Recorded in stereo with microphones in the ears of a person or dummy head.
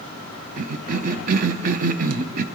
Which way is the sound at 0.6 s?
45° right (ahead or behind).